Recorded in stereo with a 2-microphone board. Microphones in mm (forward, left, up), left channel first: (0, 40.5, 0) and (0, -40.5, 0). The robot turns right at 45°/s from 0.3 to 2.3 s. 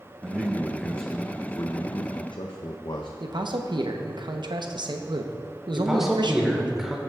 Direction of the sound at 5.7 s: 5° right (ahead or behind).